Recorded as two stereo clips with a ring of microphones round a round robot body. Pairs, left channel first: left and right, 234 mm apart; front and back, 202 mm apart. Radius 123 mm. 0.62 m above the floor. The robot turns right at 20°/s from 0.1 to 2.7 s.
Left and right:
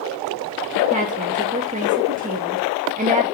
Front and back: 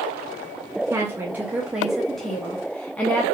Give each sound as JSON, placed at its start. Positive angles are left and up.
{"t": 0.9, "sound": "a woman speaking", "azimuth_deg": -115, "distance_m": 0.7}